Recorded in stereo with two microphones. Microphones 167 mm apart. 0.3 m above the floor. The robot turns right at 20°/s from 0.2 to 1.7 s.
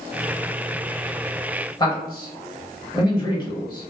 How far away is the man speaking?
About 1.0 m.